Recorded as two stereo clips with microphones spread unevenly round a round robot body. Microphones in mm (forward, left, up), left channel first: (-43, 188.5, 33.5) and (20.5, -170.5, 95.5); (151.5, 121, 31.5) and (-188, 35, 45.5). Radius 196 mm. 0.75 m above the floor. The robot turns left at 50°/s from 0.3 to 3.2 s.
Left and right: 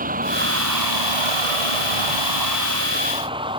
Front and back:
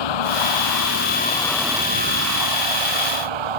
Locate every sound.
0.0 s a vehicle: 10° right; by 3.6 s 155° right